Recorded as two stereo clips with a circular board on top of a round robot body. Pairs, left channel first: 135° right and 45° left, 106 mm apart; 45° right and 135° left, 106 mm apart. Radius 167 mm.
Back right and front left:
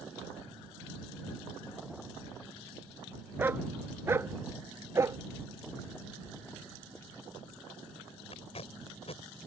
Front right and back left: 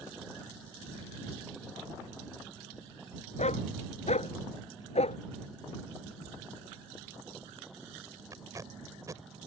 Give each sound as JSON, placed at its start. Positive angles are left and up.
{"t": 3.4, "sound": "a dog barking", "azimuth_deg": -25}
{"t": 6.3, "sound": "a squeak", "azimuth_deg": 165}
{"t": 8.3, "sound": "tape being pulled", "azimuth_deg": -165}